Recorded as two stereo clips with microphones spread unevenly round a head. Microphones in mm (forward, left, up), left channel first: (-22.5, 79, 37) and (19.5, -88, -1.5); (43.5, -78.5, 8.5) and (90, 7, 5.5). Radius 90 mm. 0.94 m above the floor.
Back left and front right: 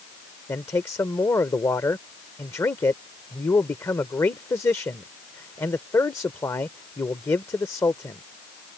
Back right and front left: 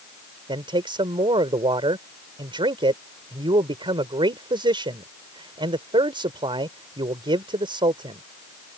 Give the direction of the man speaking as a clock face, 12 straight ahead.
11 o'clock.